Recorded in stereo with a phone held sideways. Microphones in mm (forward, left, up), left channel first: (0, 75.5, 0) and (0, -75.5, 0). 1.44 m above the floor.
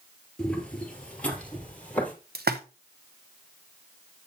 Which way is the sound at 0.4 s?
5° left (ahead or behind).